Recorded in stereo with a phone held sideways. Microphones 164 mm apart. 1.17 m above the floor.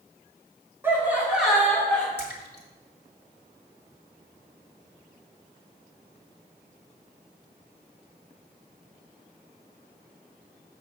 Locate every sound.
0.8 s laughter: 15° right (ahead or behind), 2.5 m; by 2.1 s 5° left (ahead or behind), 2.5 m
2.2 s a splash: 85° left, 1.7 m